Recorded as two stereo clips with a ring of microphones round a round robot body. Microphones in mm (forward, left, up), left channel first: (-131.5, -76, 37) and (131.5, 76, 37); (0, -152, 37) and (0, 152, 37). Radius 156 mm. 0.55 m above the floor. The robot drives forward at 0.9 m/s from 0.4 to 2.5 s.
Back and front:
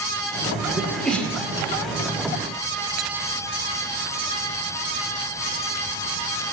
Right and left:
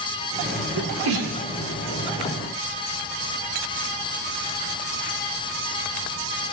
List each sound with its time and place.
0.8 s a sneeze: 115° left, 2.0 m; by 1.4 s 130° left, 2 m